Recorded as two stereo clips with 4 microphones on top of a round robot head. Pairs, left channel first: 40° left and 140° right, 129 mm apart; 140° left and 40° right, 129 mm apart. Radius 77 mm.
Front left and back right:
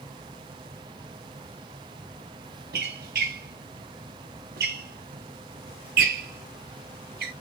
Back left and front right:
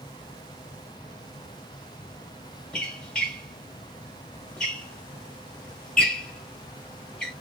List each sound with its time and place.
2.7 s a squeak: 140° right, 0.8 m